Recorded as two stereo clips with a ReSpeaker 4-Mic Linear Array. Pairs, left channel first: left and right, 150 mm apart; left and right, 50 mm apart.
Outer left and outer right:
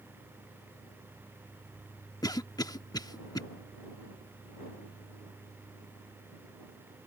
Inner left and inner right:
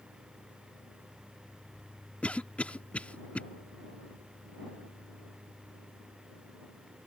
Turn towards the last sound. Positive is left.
turn(degrees=25)  # may be behind; listen again after turning